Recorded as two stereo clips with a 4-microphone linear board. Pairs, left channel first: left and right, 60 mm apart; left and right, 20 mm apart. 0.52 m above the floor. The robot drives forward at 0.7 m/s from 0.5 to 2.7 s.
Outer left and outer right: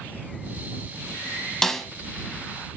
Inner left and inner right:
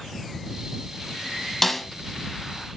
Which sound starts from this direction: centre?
A snare drum, at 1.6 s.